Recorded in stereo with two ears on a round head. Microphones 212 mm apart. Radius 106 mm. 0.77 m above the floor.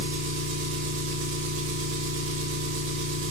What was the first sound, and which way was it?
An engine running, 55° right (ahead or behind).